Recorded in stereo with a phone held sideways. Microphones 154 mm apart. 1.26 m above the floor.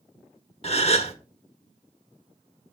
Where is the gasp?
40° left (ahead or behind), 0.9 m.